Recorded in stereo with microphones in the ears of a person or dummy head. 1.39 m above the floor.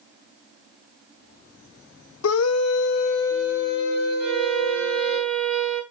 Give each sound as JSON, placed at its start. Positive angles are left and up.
{"t": 2.2, "sound": "a scream", "side_deg": 75, "distance_m": 0.7}
{"t": 4.2, "sound": "a violin", "side_deg": -5, "distance_m": 6.0}